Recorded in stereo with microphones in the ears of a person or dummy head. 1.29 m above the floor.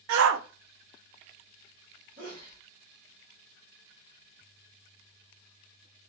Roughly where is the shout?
Right.